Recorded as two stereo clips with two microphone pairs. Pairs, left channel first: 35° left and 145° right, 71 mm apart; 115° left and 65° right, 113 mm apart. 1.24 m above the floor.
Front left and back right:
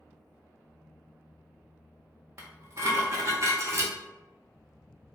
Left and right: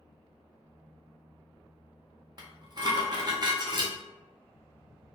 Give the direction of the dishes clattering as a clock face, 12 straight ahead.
4 o'clock.